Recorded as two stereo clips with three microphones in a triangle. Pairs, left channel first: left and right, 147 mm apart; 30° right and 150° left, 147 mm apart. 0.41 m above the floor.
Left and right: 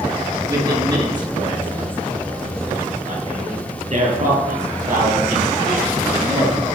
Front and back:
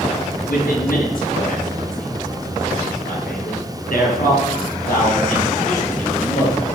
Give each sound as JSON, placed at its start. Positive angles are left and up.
{"t": 0.5, "sound": "a man speaking", "azimuth_deg": -25, "distance_m": 5.5}